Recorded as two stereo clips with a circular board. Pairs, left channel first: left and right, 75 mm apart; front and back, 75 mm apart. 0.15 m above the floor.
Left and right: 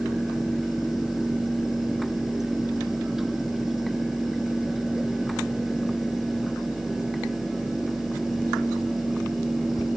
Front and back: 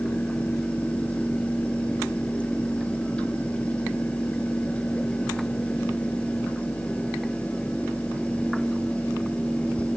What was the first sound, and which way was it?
Only background noise.